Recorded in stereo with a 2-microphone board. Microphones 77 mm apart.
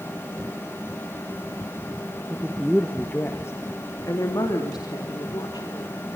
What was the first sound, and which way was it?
A woman speaking, 15° right (ahead or behind).